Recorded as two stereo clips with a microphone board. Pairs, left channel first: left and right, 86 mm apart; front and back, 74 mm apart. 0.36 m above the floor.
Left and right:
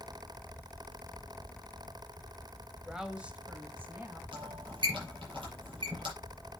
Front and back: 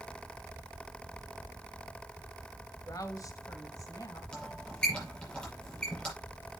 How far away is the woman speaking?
About 1.6 m.